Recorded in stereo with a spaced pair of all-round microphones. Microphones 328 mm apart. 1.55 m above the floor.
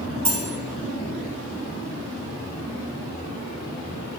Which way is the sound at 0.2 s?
55° right (ahead or behind).